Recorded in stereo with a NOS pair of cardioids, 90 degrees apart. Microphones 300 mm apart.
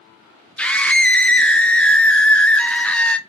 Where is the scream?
5° left, 0.5 m.